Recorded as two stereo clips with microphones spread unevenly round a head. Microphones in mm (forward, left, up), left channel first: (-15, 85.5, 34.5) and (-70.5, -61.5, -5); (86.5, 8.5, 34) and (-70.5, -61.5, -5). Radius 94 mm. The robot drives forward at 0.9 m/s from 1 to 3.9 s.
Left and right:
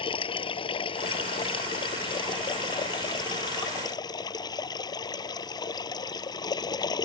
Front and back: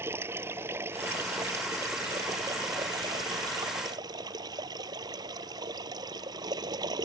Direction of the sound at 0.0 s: 125° left.